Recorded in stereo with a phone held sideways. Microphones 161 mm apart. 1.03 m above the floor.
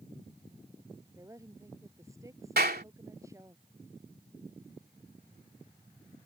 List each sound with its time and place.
1.1 s a woman speaking: 20° right (ahead or behind)
2.6 s a clap: 75° right (ahead or behind)